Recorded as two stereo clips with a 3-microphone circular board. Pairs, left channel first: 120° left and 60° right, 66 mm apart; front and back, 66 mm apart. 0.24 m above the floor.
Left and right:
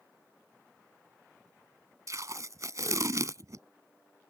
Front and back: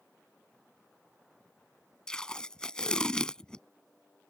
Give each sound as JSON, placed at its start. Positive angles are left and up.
{"t": 2.1, "sound": "tape being pulled", "azimuth_deg": -75}